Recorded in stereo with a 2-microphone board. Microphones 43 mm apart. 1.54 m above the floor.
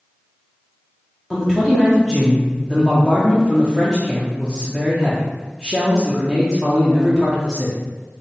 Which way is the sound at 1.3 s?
5° left (ahead or behind).